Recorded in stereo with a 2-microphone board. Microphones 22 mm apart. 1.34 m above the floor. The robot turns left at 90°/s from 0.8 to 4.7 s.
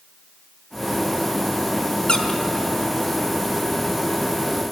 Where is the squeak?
35° left (ahead or behind), 1.9 m; by 2.4 s 10° left (ahead or behind), 1.9 m.